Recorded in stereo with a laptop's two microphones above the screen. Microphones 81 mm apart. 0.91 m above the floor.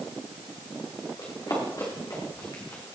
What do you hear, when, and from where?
1.2 s running footsteps: 50° left (ahead or behind), 5.5 m; by 3.0 s 35° left (ahead or behind), 3 m